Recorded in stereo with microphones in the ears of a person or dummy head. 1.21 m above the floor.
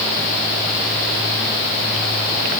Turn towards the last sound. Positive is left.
No sound to turn to.